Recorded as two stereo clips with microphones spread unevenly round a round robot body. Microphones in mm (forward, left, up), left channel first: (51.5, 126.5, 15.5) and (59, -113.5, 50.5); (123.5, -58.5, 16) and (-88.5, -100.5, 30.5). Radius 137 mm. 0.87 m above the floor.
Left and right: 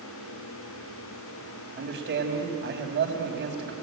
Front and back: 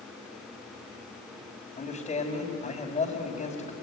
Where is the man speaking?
45° right, 4 m.